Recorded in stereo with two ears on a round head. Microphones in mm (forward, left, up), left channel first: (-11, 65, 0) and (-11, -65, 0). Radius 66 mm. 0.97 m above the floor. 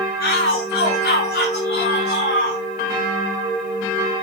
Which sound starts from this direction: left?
A shout, at 0.2 s.